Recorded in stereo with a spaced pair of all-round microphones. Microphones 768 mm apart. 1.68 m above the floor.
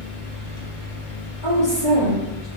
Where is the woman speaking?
35° left (ahead or behind), 1.2 m.